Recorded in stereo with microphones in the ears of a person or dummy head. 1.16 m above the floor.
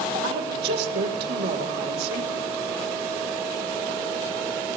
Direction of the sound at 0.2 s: 60° right (ahead or behind).